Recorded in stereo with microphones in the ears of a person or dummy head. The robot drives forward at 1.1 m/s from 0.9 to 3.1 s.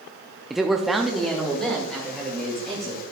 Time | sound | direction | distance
0.5 | a man speaking | 5° right (ahead or behind) | 0.5 m